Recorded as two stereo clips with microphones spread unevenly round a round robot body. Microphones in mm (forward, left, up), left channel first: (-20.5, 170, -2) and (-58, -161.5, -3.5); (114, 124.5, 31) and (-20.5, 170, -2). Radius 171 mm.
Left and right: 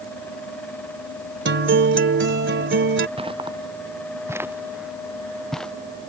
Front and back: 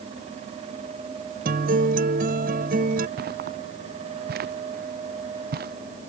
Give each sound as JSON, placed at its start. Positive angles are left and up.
{"t": 1.4, "sound": "a guitar", "azimuth_deg": -155}
{"t": 3.2, "sound": "footsteps", "azimuth_deg": -170}